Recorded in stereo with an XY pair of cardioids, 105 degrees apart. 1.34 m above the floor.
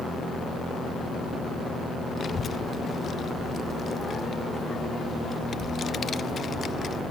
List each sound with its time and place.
2.2 s a child speaking: 40° left, 0.5 m